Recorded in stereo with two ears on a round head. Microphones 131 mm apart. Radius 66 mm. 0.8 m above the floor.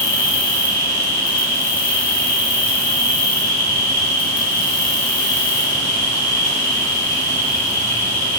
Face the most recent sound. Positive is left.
turn(degrees=30)  # may be behind; listen again after turning